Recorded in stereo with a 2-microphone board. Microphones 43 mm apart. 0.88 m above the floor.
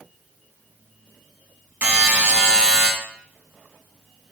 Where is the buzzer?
40° right (ahead or behind), 1.9 m.